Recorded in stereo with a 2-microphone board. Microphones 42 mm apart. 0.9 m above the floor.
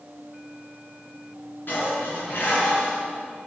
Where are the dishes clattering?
55° left (ahead or behind), 7.5 m.